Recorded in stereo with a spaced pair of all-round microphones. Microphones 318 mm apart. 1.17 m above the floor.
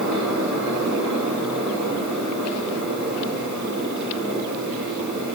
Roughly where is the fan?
Right.